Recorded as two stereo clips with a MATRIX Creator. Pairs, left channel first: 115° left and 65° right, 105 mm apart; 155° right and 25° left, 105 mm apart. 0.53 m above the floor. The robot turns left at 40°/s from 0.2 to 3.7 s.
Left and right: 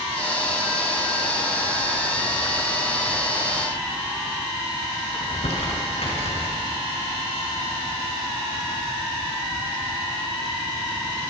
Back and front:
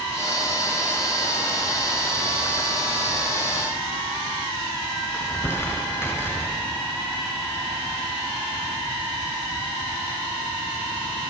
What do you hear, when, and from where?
5.1 s crumpling: 135° left, 7 m